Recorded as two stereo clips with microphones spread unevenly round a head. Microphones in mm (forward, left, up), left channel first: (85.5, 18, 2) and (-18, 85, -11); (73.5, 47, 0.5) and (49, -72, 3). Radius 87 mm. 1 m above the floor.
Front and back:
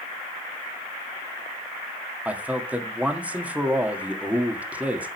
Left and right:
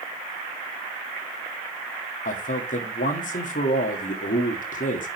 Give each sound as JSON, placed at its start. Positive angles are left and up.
{"t": 2.2, "sound": "a man speaking", "azimuth_deg": 70, "distance_m": 1.9}